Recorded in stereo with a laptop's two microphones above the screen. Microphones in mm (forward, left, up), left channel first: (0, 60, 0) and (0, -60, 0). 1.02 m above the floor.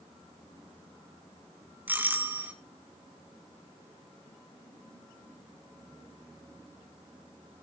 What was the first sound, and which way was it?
A doorbell, 15° right (ahead or behind).